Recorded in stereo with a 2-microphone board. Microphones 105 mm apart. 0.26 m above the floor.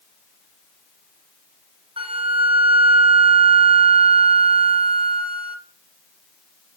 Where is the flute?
55° right (ahead or behind), 1.9 m.